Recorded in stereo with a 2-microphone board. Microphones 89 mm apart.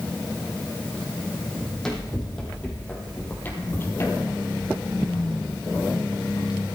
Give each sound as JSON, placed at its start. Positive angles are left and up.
{"t": 1.6, "sound": "running footsteps", "side_deg": 5, "distance_m": 4.0}